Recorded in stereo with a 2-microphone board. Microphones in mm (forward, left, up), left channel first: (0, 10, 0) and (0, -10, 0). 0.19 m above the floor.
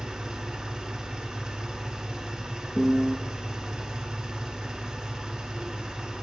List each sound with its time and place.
0.0 s an engine running: 50° right (ahead or behind), 1.6 m
2.8 s a piano: 5° right (ahead or behind), 0.7 m